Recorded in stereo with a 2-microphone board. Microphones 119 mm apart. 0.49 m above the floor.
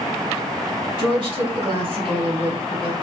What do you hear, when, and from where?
1.0 s a woman speaking: 45° right (ahead or behind), 3 m